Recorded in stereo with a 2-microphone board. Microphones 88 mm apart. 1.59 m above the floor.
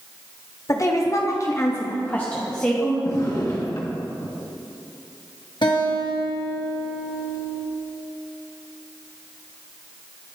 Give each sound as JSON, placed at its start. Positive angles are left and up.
{"t": 0.7, "sound": "a woman speaking", "side_deg": 40, "distance_m": 0.8}
{"t": 3.0, "sound": "a drawer", "side_deg": 45, "distance_m": 1.2}
{"t": 5.6, "sound": "a guitar", "side_deg": 65, "distance_m": 1.2}